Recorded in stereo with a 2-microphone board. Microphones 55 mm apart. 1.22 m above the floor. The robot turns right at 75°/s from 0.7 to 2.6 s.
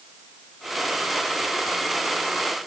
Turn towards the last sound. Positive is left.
No sound to turn to.